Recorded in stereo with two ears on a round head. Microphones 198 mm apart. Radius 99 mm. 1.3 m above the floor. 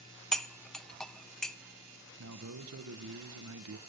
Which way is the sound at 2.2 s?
70° right (ahead or behind).